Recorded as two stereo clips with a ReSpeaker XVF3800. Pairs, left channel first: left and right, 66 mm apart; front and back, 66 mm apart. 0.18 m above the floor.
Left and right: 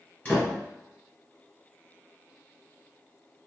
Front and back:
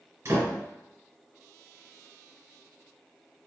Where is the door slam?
145° left, 2.0 m.